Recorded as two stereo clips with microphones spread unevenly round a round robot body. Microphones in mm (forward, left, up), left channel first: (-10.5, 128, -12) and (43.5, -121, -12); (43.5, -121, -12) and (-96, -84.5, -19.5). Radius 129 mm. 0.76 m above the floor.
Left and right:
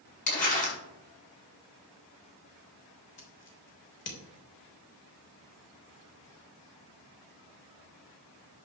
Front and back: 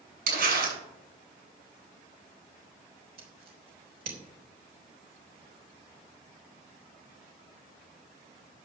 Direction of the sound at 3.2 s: 150° left.